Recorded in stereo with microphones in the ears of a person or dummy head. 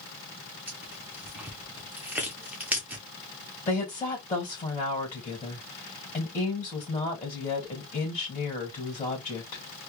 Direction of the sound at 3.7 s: 15° left (ahead or behind).